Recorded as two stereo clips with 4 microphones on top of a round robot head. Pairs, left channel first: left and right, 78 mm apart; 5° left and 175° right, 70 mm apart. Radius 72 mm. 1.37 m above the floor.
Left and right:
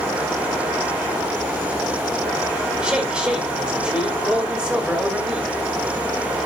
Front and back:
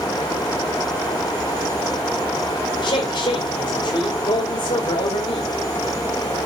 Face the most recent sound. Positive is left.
turn(degrees=-10)